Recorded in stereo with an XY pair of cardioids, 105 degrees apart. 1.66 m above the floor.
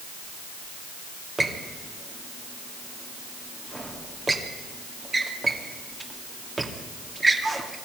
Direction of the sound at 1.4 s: 25° right.